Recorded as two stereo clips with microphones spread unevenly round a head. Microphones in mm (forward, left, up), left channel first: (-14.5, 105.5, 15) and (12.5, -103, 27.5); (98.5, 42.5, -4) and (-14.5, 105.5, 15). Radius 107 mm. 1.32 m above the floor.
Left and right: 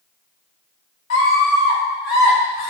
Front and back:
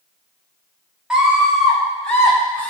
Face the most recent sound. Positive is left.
turn(degrees=50)